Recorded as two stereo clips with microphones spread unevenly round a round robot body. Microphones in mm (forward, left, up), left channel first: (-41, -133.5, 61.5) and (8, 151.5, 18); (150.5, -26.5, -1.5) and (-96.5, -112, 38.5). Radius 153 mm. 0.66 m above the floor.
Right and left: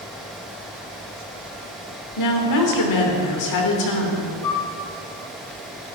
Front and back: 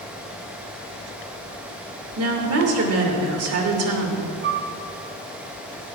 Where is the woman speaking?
125° right, 3 m.